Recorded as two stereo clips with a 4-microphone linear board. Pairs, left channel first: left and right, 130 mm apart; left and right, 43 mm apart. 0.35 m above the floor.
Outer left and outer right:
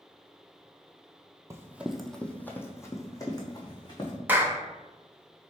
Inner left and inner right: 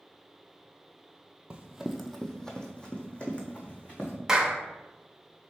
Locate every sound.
1.5 s running footsteps: 25° right (ahead or behind), 0.6 m; by 4.2 s 35° left (ahead or behind), 1.7 m
4.3 s a clap: 15° right (ahead or behind), 0.6 m